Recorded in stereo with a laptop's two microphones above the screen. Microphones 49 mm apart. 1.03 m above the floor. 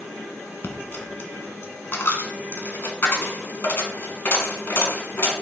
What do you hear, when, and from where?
0.6 s a dropped coin: 50° left (ahead or behind), 1.6 m